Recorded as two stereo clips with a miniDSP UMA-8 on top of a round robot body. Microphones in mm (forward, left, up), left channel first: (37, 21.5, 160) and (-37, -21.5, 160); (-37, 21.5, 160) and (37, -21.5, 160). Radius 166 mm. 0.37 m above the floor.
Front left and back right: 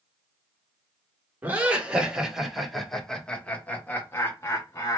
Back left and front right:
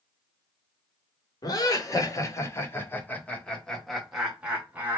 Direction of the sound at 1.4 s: 145° left.